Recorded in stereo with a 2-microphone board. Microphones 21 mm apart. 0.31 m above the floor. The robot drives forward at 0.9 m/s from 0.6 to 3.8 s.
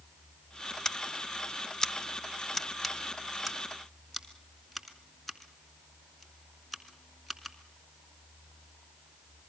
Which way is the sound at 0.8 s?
20° left (ahead or behind).